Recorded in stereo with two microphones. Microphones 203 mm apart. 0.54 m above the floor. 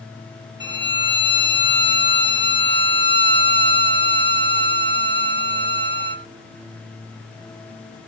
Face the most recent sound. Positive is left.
turn(degrees=-55)  # may be behind; listen again after turning